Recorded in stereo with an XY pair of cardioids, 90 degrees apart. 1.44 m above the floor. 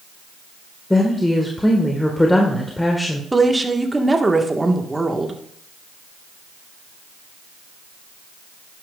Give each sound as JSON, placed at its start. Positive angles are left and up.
{"t": 0.9, "sound": "a woman speaking", "azimuth_deg": 15, "distance_m": 1.6}
{"t": 3.3, "sound": "a woman speaking", "azimuth_deg": -15, "distance_m": 1.6}